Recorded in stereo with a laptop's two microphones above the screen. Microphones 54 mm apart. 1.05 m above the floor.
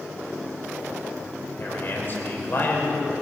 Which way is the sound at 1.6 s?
40° left (ahead or behind).